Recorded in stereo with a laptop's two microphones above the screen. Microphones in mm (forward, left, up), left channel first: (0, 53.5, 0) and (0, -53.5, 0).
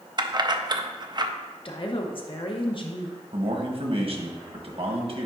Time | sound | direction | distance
0.2 | keys jangling | 40° right (ahead or behind) | 0.5 m
1.6 | a woman speaking | 50° left (ahead or behind) | 1.0 m
3.3 | a man speaking | 55° right (ahead or behind) | 1.1 m